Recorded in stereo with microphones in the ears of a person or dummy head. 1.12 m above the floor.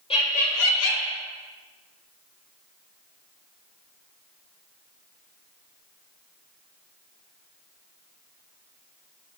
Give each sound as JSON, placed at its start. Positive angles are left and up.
{"t": 0.1, "sound": "laughter", "side_deg": 30, "distance_m": 0.9}